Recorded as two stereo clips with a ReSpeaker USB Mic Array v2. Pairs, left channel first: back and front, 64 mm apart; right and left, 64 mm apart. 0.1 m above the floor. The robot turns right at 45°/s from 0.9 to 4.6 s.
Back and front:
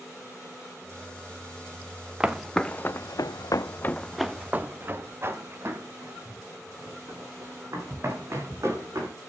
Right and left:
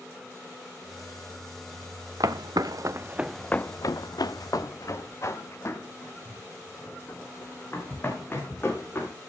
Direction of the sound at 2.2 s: 75° left.